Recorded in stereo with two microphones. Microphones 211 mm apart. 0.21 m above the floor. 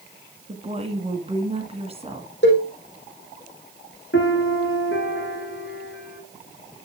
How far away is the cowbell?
About 5 m.